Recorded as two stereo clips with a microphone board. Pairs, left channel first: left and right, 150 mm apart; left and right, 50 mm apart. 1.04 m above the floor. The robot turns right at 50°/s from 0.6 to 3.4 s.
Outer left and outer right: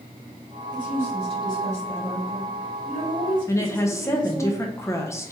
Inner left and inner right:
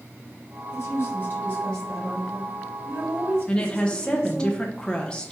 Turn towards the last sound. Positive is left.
turn(degrees=20)  # may be behind; listen again after turning